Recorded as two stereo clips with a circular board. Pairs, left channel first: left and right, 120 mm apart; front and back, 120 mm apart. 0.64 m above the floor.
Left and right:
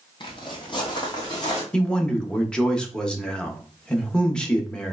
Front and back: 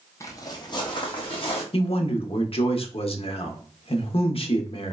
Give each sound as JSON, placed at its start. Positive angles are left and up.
{"t": 0.2, "sound": "footsteps", "azimuth_deg": 60, "distance_m": 1.0}
{"t": 1.7, "sound": "a man speaking", "azimuth_deg": 10, "distance_m": 0.8}